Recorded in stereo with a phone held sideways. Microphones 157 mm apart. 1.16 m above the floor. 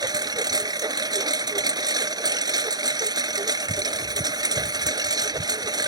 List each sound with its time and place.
0.0 s a lawn mower: 25° right (ahead or behind)